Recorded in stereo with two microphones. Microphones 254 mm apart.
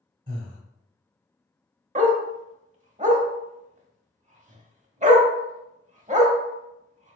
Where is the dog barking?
30° right (ahead or behind), 0.6 m.